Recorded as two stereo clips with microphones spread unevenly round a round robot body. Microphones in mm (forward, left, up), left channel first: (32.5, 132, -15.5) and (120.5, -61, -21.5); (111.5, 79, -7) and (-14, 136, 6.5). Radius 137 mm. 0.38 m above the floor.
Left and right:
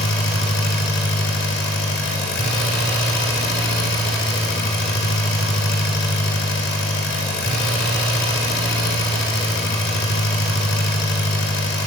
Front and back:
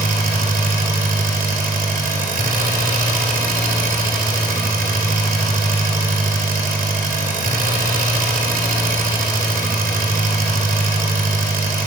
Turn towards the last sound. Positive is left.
turn(degrees=160)